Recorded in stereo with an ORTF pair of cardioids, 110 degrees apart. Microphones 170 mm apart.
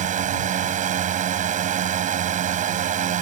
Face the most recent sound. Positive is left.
turn(degrees=-50)